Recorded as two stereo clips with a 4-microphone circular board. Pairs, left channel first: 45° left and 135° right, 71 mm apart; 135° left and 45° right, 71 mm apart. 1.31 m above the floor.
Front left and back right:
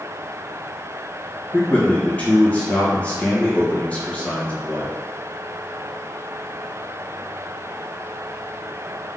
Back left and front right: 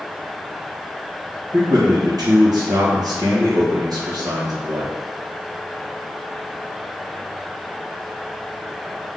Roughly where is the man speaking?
Ahead right.